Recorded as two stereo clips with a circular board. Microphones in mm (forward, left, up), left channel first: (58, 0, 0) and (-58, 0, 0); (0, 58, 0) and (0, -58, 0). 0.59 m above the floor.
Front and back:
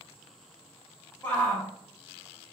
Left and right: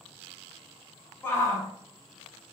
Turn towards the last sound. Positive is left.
turn(degrees=55)